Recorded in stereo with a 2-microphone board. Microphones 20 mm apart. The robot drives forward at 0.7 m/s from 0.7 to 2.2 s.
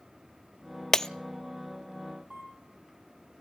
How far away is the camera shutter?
About 6 m.